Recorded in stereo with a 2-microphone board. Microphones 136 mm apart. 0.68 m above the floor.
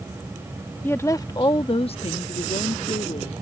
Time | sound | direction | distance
0.8 | a woman speaking | 15° left (ahead or behind) | ?